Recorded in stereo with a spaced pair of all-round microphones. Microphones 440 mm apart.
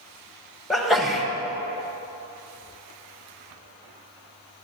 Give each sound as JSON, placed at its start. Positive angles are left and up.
{"t": 0.7, "sound": "a sneeze", "side_deg": 0, "distance_m": 1.3}